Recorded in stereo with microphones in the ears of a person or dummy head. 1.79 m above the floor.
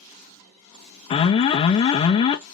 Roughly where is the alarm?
Left.